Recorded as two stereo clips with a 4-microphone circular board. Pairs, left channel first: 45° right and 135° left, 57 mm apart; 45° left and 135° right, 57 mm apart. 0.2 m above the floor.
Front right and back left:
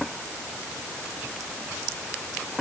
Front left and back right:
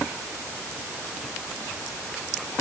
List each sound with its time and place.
Only background noise.